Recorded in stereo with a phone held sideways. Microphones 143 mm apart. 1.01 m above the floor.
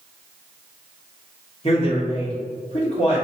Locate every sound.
1.6 s a man speaking: 45° left (ahead or behind), 1.3 m